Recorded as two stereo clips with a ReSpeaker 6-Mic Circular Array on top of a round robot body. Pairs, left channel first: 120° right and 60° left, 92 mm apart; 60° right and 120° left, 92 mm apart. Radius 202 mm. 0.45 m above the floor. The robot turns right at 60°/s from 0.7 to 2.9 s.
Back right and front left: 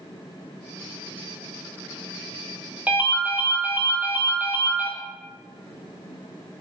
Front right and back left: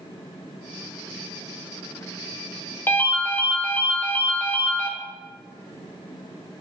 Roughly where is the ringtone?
Ahead.